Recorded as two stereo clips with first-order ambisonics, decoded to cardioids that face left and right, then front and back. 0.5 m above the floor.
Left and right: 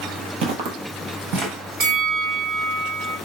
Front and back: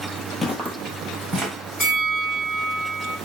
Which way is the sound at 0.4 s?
75° right.